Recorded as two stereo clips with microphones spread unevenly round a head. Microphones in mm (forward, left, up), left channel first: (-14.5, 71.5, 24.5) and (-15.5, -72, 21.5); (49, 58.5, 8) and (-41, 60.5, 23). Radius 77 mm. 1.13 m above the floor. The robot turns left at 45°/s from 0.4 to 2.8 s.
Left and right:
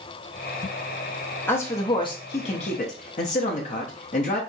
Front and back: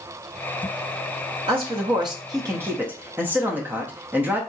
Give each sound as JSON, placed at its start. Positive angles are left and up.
{"t": 1.5, "sound": "a man speaking", "azimuth_deg": 165, "distance_m": 1.1}